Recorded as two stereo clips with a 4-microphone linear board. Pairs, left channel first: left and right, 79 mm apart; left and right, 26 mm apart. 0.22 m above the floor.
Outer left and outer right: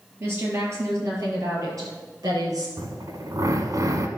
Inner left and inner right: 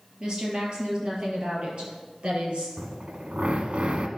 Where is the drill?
55° right (ahead or behind), 1.1 m.